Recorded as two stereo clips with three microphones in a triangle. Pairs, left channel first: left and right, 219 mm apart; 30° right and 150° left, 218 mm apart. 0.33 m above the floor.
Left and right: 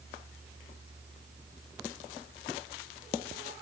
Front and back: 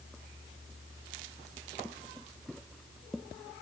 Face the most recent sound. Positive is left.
No sound to turn to.